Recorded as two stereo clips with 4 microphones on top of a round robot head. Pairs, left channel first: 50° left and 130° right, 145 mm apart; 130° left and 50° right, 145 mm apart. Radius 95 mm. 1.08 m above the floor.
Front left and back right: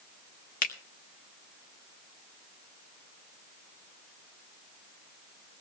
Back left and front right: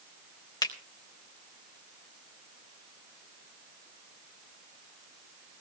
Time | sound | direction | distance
0.6 | a finger snap | 70° left | 1.6 m